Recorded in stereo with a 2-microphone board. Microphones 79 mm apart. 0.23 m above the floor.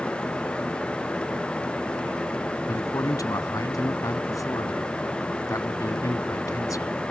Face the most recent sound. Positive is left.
turn(degrees=50)  # may be behind; listen again after turning